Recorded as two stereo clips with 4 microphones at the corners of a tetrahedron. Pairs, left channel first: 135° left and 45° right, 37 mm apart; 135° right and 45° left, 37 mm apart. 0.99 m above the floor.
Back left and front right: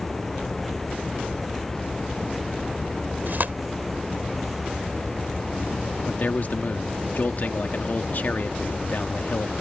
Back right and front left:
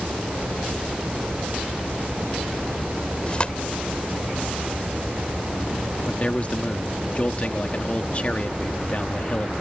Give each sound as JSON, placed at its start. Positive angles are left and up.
{"t": 3.3, "sound": "tearing paper", "azimuth_deg": -75}
{"t": 6.1, "sound": "a man speaking", "azimuth_deg": 175}